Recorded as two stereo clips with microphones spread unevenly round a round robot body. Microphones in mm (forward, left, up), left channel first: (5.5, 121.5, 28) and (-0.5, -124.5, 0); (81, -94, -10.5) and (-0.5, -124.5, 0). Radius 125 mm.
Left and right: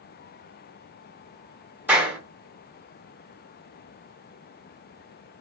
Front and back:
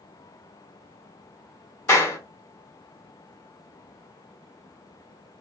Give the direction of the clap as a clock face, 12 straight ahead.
12 o'clock.